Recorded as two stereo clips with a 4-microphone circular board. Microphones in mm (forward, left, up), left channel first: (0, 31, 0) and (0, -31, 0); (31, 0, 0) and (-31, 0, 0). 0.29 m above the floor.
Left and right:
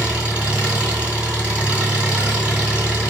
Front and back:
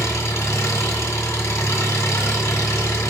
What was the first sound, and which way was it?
An engine running, 20° right.